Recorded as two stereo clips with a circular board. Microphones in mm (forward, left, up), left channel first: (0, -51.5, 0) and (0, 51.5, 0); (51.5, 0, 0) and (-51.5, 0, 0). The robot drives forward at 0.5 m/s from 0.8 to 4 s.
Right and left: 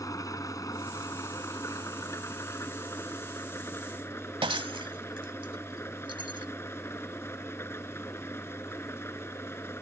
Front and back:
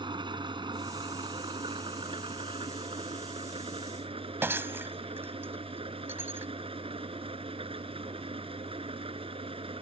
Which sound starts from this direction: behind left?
Breaking glass, at 4.4 s.